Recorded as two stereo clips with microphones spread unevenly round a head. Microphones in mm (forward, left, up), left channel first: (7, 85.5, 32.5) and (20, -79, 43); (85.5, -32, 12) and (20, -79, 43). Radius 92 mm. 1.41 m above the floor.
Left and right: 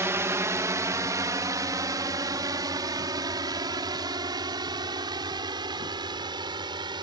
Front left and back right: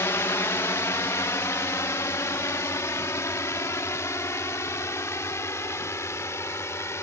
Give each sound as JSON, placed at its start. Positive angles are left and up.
{"t": 0.0, "sound": "a drone", "azimuth_deg": -10}